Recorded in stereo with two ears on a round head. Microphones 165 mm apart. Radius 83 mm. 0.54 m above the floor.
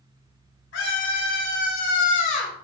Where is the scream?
75° left (ahead or behind), 4 m; by 2.6 s 35° left (ahead or behind), 3 m.